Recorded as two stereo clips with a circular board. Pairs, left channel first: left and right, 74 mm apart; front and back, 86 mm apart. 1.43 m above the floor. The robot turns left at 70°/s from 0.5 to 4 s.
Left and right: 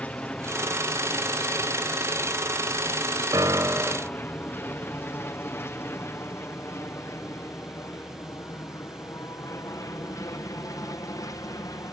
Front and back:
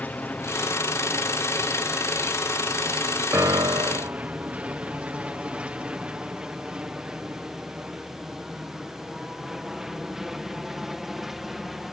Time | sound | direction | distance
0.0 | an aircraft | 45° left | ?
3.3 | a piano | 120° right | ?